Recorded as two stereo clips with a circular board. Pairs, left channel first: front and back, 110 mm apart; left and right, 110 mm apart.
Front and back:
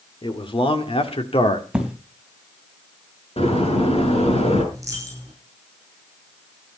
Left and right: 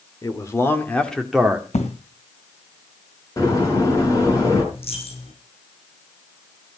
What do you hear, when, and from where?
0.2 s a man speaking: 35° left, 2.5 m; by 1.6 s 15° right, 1.9 m
1.7 s an explosion: 100° left, 3 m
3.4 s a door slam: 30° left, 6.5 m
4.7 s a dropped coin: 120° left, 6 m